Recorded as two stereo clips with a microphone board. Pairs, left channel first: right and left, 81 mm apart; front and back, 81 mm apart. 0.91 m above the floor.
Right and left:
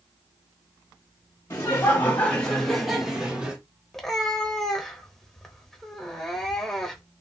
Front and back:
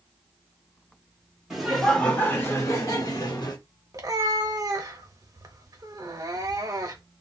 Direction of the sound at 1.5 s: 95° right.